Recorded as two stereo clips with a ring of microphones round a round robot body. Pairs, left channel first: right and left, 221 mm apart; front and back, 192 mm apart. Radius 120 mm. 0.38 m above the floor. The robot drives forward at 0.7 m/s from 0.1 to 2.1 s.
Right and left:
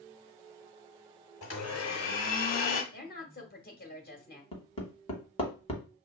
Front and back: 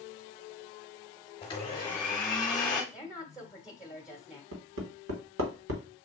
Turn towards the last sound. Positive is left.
turn(degrees=-155)